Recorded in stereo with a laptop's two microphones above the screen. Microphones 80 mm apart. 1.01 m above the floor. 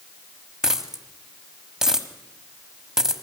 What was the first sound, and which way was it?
A dropped coin, 10° right (ahead or behind).